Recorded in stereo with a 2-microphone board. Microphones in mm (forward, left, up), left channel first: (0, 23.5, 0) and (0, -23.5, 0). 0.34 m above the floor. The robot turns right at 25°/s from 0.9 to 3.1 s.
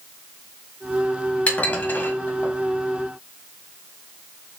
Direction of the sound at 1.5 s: 30° left (ahead or behind).